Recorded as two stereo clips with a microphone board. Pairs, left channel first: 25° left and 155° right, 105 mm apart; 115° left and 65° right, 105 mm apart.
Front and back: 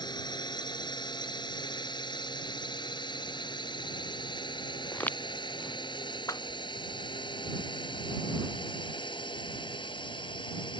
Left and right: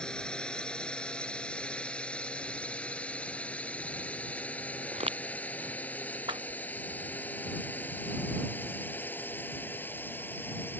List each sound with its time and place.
0.0 s a drone: 35° left; by 10.8 s 45° left
4.9 s footsteps: 50° right
6.3 s a whoosh: 35° right